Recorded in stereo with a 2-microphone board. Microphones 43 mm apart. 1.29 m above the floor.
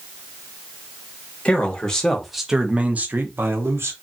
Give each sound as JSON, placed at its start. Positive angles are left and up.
{"t": 1.4, "sound": "a man speaking", "side_deg": 25, "distance_m": 1.1}